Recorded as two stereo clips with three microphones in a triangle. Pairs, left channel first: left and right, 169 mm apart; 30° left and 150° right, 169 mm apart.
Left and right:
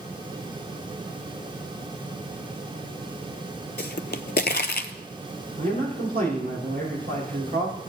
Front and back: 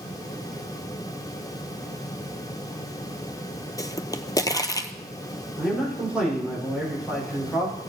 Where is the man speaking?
65° right, 5.5 m.